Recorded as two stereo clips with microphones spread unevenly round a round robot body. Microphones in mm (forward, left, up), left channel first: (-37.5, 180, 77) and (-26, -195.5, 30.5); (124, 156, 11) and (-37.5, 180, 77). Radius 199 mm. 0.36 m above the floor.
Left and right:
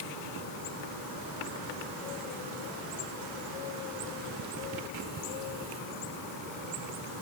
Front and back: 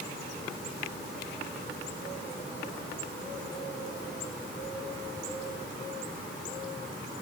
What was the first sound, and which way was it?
Only background noise.